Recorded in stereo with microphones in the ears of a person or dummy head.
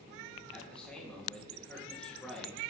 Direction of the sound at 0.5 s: 5° left (ahead or behind).